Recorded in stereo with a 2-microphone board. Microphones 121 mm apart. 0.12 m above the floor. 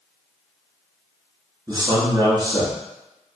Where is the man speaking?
35° right (ahead or behind), 1.3 m.